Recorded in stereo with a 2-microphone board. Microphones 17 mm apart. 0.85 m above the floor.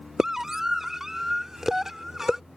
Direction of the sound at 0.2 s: 25° right (ahead or behind).